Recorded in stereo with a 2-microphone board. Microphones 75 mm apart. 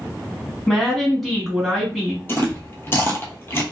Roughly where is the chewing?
Left.